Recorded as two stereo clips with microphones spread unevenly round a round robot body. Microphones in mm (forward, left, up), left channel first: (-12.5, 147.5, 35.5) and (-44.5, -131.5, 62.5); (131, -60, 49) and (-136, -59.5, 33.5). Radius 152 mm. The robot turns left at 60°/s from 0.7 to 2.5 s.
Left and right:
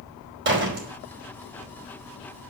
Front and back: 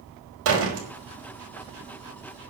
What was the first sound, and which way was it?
A door slam, 145° right.